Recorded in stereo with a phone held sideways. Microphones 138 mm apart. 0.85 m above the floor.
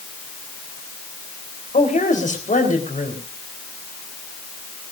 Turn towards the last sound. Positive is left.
turn(degrees=70)  # may be behind; listen again after turning